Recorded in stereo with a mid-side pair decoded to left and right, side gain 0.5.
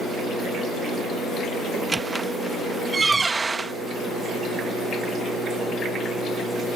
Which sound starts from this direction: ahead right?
A squeak, at 1.7 s.